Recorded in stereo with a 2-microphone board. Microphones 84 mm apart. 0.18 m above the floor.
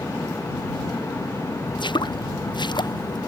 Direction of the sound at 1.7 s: 65° left (ahead or behind).